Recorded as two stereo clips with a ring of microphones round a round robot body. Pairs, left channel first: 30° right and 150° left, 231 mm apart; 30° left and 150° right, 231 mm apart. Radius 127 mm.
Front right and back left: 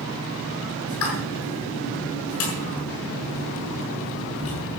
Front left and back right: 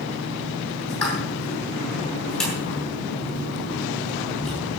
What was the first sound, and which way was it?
A pop, 60° right.